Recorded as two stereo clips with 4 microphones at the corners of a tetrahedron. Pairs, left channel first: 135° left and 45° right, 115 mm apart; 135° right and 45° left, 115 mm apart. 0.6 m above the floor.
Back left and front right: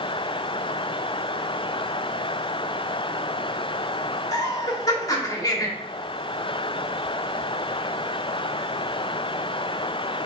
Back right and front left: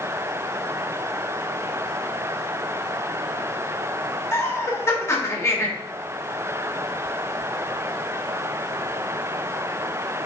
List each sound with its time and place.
4.3 s laughter: 170° left, 1.2 m